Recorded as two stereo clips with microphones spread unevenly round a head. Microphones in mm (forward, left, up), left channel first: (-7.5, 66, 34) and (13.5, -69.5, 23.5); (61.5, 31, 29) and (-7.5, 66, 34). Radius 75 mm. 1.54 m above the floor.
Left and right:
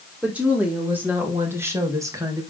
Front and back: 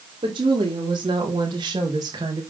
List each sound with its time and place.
0.2 s a woman speaking: 160° right, 5 m; by 2.5 s 145° right, 2.0 m